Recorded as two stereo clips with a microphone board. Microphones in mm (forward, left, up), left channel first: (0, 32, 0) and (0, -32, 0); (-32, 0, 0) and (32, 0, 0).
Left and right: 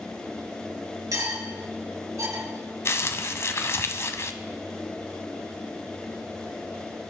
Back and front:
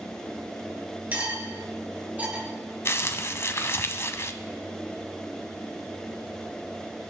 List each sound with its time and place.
1.1 s cutlery clinking: 65° right, 3 m
2.9 s crumpling: 135° left, 0.7 m